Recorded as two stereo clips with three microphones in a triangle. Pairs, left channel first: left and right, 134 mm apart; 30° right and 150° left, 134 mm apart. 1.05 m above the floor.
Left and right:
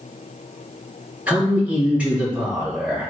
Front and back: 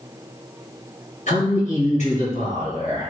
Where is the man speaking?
10° right, 1.5 m.